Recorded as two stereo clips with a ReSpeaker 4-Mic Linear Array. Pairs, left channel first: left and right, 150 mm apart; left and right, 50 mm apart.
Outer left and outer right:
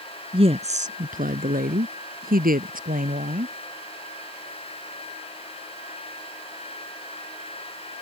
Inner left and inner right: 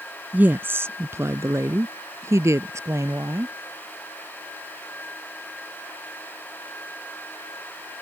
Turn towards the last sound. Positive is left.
turn(degrees=-60)  # may be behind; listen again after turning